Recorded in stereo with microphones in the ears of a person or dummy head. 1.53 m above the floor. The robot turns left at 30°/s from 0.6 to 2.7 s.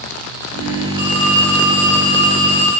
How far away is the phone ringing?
About 2.5 m.